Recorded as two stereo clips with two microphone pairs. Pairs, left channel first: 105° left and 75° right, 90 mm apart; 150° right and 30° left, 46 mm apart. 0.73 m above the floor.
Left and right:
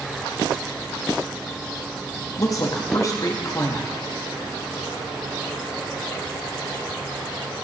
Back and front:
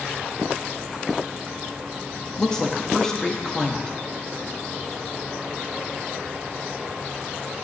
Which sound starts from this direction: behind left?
A woman speaking, at 2.4 s.